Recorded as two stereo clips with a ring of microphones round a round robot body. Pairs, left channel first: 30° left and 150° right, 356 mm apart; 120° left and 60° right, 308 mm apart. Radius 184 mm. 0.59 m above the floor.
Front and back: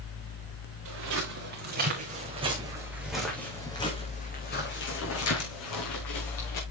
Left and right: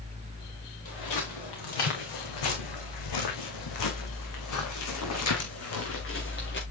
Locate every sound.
0.8 s footsteps: 155° left, 4 m; by 6.6 s 65° left, 4 m